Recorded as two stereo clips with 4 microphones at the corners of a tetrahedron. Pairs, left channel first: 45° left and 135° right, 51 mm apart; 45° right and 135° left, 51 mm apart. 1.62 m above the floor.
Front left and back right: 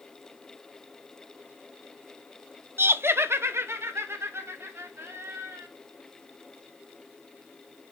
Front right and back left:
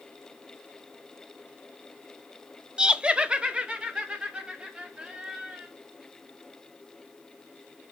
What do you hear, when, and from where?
2.8 s laughter: 155° right, 0.5 m; by 5.7 s 160° right, 3.5 m